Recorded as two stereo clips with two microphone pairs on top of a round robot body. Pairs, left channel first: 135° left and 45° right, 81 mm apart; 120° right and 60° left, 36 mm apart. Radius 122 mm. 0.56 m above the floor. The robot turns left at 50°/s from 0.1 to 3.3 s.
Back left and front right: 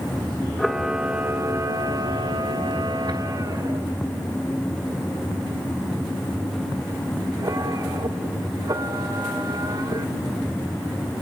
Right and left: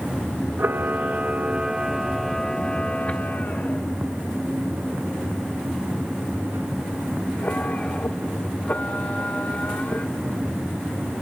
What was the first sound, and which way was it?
A camera shutter, 55° left.